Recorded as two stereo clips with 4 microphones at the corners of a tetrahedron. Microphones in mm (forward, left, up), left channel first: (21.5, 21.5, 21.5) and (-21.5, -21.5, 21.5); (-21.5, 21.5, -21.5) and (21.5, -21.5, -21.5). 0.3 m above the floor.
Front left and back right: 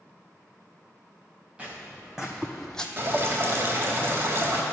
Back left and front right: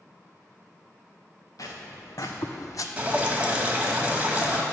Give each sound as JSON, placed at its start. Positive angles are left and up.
{"t": 1.6, "sound": "footsteps", "azimuth_deg": 150, "distance_m": 1.6}
{"t": 3.0, "sound": "dripping", "azimuth_deg": -105, "distance_m": 1.1}